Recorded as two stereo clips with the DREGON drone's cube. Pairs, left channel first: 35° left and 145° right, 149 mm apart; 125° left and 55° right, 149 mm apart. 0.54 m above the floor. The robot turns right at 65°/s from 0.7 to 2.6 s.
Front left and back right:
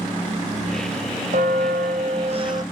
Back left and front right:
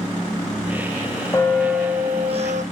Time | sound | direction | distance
1.3 | a bell | 165° right | 0.5 m